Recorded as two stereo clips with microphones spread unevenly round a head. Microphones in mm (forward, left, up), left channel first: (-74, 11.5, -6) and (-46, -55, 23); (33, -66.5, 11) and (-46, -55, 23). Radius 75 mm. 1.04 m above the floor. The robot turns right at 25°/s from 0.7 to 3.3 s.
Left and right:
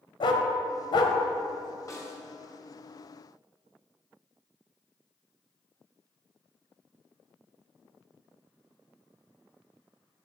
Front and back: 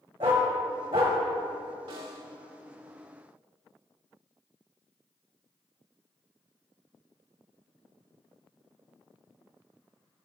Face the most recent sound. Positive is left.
turn(degrees=-165)